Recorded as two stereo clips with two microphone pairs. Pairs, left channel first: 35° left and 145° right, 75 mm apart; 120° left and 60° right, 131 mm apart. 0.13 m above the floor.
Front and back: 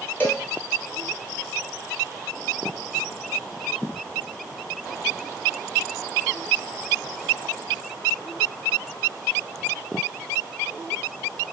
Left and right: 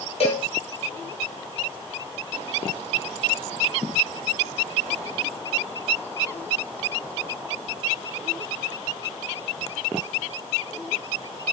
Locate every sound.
0.2 s a cowbell: 95° left, 1.0 m